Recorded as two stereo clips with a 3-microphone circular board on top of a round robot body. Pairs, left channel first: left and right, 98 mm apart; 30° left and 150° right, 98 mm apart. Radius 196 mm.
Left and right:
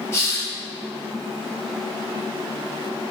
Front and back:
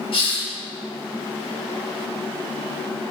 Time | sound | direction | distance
0.1 | a hiss | 30° left | 1.6 m